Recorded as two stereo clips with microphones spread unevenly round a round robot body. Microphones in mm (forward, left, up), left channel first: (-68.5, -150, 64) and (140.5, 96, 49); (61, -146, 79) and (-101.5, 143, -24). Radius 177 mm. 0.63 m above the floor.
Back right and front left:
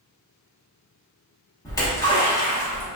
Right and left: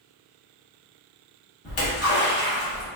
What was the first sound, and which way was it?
A splash, 65° right.